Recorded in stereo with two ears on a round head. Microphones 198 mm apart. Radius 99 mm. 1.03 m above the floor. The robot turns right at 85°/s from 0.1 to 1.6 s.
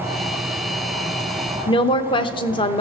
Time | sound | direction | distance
1.7 | a woman speaking | 25° left (ahead or behind) | 0.6 m